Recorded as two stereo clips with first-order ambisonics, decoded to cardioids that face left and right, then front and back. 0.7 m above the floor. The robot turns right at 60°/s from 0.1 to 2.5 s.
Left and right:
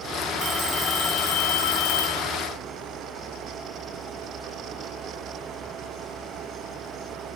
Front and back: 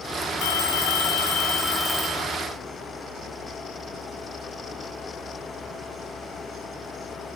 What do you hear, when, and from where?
0.4 s a phone ringing: 20° right, 7 m; by 2.2 s 95° left, 7 m